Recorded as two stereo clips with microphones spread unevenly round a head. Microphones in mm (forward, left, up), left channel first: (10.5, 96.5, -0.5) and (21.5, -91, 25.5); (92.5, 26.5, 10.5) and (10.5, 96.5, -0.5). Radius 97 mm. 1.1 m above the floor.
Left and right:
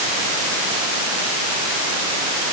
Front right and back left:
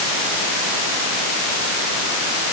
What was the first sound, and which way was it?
Only background noise.